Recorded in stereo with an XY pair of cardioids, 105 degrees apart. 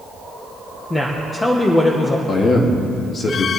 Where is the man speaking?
45° left, 2 m.